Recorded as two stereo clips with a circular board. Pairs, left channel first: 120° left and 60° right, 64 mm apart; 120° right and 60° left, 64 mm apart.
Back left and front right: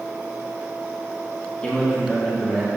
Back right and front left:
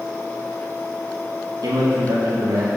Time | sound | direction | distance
1.6 | a man speaking | 50° left | 2.5 m